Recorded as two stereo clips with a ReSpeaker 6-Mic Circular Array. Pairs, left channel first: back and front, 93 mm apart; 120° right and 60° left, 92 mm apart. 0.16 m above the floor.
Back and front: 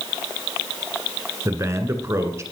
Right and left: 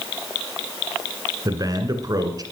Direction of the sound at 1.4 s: 45° left.